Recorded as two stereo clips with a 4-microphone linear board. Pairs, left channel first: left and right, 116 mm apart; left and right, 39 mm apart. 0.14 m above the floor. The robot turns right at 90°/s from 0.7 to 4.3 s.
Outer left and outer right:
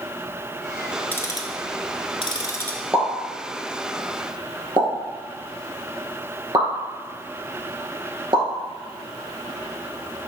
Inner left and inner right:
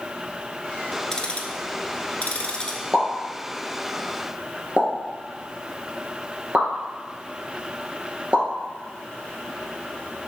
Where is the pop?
5° right (ahead or behind), 2 m; by 8.4 s 40° right (ahead or behind), 2 m.